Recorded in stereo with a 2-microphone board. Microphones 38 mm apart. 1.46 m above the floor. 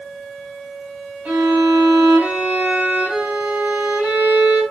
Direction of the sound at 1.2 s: 60° right (ahead or behind).